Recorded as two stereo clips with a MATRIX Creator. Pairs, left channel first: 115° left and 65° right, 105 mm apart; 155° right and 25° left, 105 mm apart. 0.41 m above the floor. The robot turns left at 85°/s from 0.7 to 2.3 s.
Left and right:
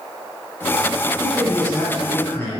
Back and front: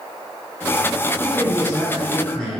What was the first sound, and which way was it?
A man speaking, 140° right.